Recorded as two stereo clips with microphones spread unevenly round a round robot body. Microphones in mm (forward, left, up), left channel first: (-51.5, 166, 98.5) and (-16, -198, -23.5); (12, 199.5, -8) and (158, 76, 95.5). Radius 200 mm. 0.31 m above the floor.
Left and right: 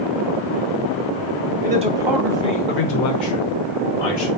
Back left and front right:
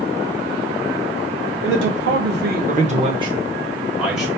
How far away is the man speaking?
About 1.1 m.